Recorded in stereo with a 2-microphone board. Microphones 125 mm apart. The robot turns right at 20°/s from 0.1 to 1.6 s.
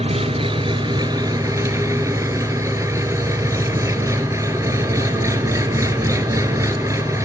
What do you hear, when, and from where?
0.0 s an engine running: 55° right, 1.2 m; by 7.3 s 25° right, 1.2 m